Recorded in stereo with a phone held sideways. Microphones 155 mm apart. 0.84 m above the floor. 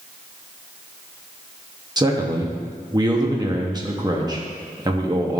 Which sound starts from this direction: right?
A man speaking, at 2.0 s.